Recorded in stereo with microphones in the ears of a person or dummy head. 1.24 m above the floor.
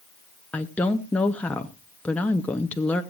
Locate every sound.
0.5 s a woman speaking: 5° left (ahead or behind), 0.8 m